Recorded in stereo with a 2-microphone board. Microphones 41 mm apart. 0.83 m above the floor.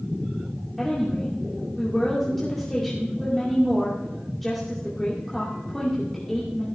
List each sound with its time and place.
0.8 s a woman speaking: 10° left (ahead or behind), 2 m